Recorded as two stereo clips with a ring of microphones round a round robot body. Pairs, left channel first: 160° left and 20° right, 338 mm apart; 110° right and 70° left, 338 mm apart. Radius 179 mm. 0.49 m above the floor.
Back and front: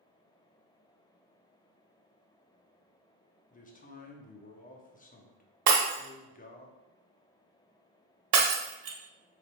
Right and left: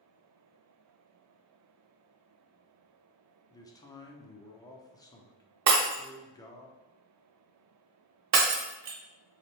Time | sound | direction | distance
3.5 | a man speaking | straight behind | 0.7 m
5.7 | breaking glass | 20° left | 0.9 m